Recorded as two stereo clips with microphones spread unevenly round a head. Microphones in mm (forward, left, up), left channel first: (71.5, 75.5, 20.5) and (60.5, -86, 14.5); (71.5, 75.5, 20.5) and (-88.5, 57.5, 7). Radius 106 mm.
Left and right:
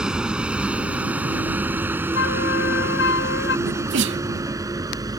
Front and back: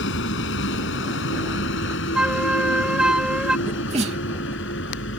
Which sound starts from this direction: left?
A flute, at 2.1 s.